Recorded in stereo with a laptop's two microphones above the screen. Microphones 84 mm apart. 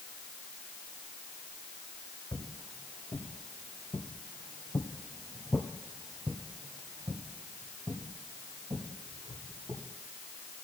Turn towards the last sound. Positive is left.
turn(degrees=-60)  # may be behind; listen again after turning